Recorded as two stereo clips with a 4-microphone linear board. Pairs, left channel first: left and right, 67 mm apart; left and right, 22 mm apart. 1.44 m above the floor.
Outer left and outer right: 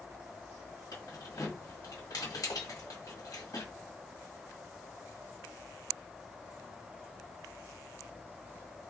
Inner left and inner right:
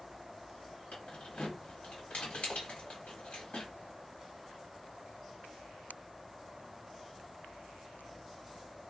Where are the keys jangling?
70° left (ahead or behind), 1.6 m.